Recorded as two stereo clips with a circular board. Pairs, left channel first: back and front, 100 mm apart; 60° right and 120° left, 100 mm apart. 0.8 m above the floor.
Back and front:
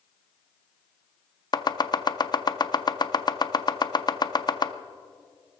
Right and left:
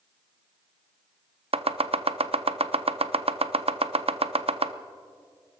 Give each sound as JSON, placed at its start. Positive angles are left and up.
{"t": 1.5, "sound": "chopping", "azimuth_deg": 135, "distance_m": 0.6}